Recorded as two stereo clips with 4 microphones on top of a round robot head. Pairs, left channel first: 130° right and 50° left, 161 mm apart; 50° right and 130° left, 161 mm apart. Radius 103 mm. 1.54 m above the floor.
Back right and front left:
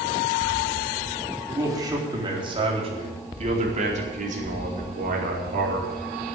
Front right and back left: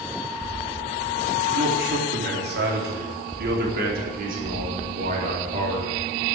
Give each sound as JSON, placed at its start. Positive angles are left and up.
{"t": 1.5, "sound": "a man speaking", "azimuth_deg": 120, "distance_m": 4.0}